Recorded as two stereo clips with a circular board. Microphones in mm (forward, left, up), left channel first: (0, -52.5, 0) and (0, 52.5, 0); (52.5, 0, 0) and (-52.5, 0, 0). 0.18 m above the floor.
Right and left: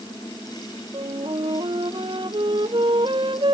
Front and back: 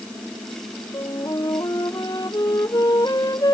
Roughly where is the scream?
No scream in this recording.